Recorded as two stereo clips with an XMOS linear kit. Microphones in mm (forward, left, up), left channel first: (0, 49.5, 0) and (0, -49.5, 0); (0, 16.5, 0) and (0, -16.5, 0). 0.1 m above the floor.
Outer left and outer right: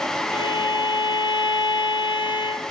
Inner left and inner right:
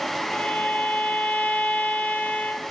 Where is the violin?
50° left (ahead or behind), 2 m.